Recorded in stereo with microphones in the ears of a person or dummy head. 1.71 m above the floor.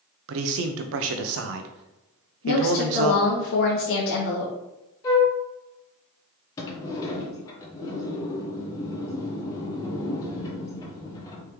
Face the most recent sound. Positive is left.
turn(degrees=20)  # may be behind; listen again after turning